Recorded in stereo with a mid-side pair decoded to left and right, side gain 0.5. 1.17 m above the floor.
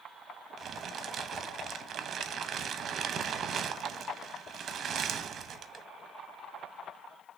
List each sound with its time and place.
0.6 s crumpling: 50° right, 0.8 m